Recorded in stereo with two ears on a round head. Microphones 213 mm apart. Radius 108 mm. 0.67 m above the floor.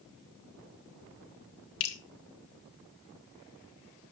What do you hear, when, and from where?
1.8 s dripping: 65° left (ahead or behind), 2.5 m